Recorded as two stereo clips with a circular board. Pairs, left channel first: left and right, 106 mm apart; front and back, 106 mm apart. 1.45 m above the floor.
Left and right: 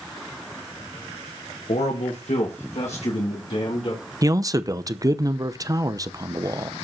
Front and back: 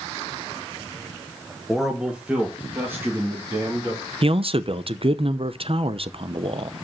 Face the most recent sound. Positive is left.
turn(degrees=-145)